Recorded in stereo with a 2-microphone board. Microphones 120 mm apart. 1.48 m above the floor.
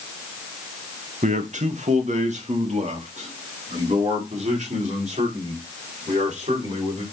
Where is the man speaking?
80° right, 1.0 m; by 7.0 s 70° right (ahead or behind), 5 m.